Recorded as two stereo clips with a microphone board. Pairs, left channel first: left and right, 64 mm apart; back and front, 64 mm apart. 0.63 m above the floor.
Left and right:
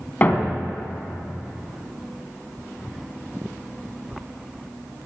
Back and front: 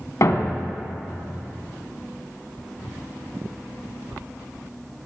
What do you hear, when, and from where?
0.2 s a thud: 150° left, 1.4 m